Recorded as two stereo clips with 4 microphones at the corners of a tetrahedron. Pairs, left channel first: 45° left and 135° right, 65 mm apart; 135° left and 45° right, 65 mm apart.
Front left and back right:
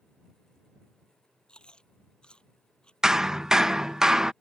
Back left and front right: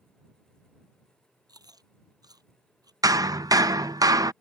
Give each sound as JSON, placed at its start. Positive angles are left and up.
{"t": 1.5, "sound": "chewing", "azimuth_deg": -30}
{"t": 3.0, "sound": "hammering", "azimuth_deg": -55}